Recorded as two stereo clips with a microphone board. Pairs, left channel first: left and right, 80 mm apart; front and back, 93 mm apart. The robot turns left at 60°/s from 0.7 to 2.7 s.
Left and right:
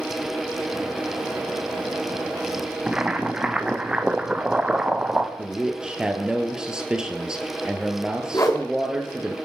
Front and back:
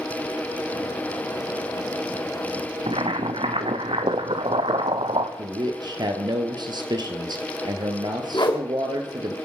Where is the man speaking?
170° right, 1.9 m.